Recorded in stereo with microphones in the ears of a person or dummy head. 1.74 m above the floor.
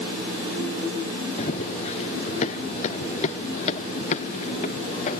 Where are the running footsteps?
40° left (ahead or behind); by 5.2 s 45° left (ahead or behind).